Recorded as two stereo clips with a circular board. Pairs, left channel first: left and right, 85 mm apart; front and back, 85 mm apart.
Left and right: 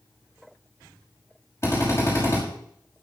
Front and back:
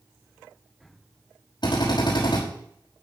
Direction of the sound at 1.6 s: 30° left.